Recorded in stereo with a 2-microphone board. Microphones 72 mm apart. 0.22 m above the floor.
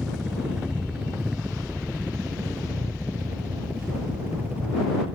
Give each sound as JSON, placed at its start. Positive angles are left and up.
{"t": 0.0, "sound": "a helicopter", "side_deg": -10}